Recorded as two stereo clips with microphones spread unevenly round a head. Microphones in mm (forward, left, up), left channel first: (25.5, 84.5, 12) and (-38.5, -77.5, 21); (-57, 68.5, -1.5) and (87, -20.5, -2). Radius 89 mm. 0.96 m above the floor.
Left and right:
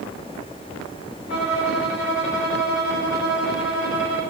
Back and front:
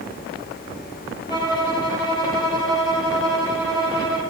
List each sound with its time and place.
1.3 s a violin: 80° left, 4 m